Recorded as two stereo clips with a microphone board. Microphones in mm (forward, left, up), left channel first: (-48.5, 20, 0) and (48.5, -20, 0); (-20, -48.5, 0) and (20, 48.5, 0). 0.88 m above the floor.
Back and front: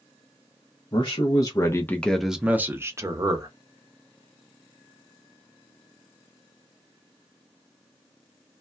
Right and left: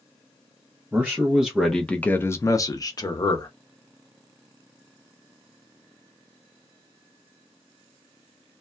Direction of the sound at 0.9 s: 135° left.